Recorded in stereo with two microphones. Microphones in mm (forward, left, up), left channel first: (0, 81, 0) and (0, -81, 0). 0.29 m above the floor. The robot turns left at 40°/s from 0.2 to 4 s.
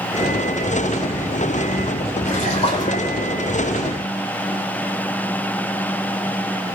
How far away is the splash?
About 9.5 m.